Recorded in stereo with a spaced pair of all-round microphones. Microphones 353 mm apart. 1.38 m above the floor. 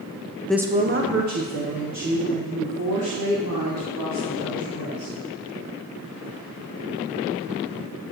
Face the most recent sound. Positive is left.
turn(degrees=-80)